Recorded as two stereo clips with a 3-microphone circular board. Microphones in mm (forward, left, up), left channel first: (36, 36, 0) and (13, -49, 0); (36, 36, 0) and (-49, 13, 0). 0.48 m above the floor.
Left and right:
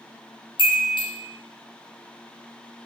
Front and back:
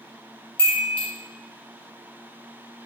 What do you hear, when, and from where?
0.6 s a chime: 85° left, 1.6 m